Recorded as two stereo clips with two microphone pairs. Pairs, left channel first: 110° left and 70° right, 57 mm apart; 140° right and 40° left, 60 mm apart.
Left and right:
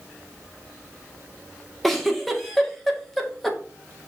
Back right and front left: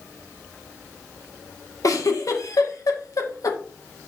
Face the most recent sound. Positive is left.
turn(degrees=-165)